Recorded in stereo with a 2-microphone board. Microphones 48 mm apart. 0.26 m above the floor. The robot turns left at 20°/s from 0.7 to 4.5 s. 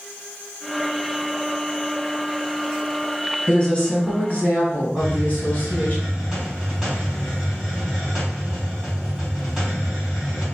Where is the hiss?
Centre (ahead or behind), 2.0 m.